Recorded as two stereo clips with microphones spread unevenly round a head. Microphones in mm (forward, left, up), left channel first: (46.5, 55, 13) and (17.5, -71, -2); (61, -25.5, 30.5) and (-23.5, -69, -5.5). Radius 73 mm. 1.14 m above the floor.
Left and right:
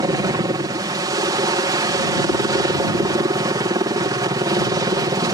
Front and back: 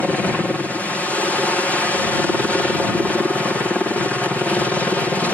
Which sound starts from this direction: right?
A helicopter, at 0.0 s.